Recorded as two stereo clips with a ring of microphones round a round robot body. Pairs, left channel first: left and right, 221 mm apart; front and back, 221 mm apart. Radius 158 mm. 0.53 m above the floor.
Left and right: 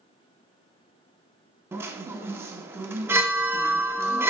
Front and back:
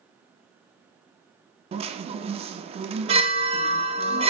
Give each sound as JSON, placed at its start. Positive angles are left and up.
{"t": 1.7, "sound": "a chime", "azimuth_deg": -160, "distance_m": 0.6}